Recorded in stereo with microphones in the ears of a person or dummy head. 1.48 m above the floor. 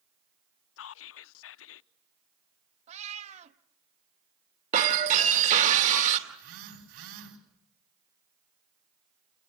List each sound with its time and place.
0.8 s whispering: 75° left (ahead or behind), 0.6 m
2.9 s a cat meowing: 40° right (ahead or behind), 1.0 m
4.7 s breaking glass: 45° right (ahead or behind), 2.5 m
6.3 s a phone buzzing: 85° right, 4 m